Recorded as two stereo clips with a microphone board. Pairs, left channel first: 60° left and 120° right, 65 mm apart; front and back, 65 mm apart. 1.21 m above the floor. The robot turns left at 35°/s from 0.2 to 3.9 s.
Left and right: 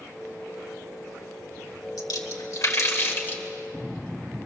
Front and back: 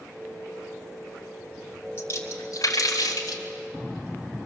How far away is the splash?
About 2.5 m.